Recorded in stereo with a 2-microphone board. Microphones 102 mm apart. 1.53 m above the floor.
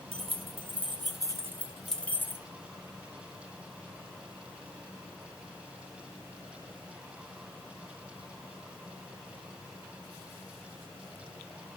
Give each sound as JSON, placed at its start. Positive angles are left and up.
{"t": 0.1, "sound": "keys jangling", "side_deg": -70, "distance_m": 2.0}